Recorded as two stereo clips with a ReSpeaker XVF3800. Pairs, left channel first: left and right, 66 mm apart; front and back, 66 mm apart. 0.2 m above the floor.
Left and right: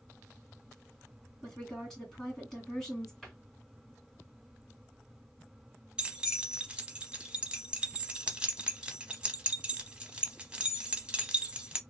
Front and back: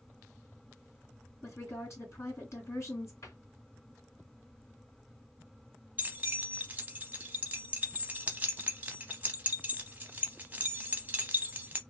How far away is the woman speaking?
About 2 m.